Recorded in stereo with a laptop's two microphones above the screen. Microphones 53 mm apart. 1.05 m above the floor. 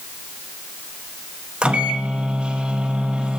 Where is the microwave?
20° right (ahead or behind), 0.7 m.